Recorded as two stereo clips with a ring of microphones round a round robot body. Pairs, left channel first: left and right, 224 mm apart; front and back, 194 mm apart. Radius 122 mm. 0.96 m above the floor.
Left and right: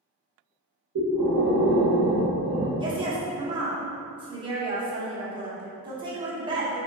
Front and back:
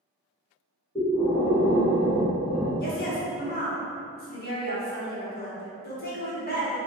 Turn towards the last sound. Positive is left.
turn(degrees=-25)